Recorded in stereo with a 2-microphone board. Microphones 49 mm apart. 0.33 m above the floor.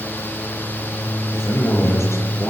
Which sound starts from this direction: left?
A man speaking, at 1.3 s.